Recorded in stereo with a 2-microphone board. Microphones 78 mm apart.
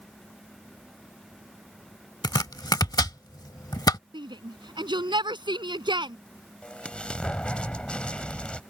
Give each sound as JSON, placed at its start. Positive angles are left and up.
{"t": 2.2, "sound": "chopping", "side_deg": 55}
{"t": 4.1, "sound": "a shout", "side_deg": -70}
{"t": 6.6, "sound": "an explosion", "side_deg": 15}